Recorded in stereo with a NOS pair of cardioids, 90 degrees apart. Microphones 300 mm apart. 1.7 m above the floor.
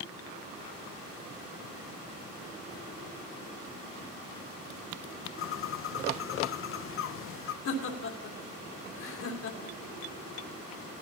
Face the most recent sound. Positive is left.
turn(degrees=55)